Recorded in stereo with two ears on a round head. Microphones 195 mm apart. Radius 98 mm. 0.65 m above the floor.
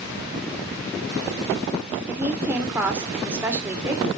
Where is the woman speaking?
10° right (ahead or behind), 2 m.